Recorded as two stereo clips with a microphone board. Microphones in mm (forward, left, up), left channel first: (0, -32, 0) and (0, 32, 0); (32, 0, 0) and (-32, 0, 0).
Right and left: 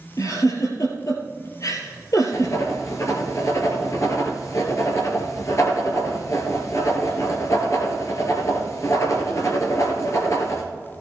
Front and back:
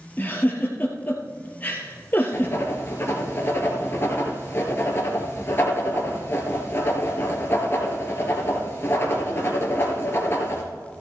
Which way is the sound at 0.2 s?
60° right.